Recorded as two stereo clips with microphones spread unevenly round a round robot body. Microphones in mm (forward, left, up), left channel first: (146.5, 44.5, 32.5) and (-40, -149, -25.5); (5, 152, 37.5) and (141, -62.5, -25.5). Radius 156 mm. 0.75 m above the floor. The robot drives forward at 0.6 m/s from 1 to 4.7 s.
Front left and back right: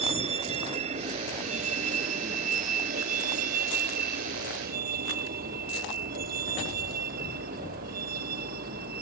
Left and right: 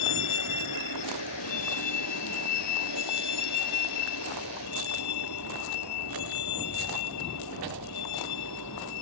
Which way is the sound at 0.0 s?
150° left.